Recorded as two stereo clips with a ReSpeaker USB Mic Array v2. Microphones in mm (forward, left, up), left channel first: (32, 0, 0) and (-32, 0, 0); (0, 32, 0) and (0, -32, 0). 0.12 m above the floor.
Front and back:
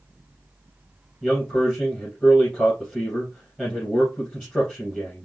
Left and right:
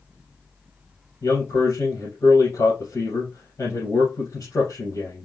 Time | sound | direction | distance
1.2 | a man speaking | 80° left | 3 m